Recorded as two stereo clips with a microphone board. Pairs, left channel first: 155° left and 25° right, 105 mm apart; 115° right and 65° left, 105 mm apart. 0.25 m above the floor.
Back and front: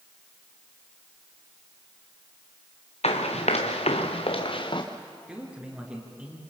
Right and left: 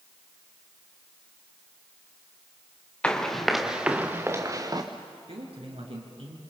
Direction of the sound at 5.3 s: 55° left.